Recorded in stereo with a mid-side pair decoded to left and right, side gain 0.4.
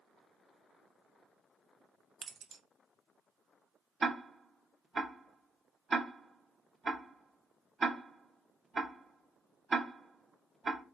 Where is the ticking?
35° right, 0.9 m.